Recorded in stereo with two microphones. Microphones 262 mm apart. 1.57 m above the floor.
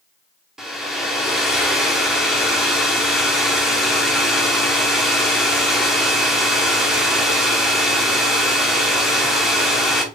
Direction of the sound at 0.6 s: Centre (ahead or behind).